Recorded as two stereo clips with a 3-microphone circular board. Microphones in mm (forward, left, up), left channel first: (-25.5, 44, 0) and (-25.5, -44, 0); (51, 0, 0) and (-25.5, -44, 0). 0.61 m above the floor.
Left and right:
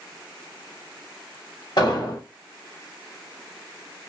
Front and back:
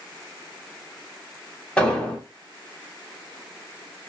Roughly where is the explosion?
Left.